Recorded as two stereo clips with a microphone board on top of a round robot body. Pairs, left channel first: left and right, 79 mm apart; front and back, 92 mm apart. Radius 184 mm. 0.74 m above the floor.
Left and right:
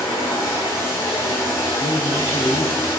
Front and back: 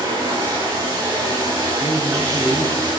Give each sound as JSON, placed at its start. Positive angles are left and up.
{"t": 0.0, "sound": "running water", "azimuth_deg": 130, "distance_m": 7.0}
{"t": 1.8, "sound": "a man speaking", "azimuth_deg": 115, "distance_m": 2.5}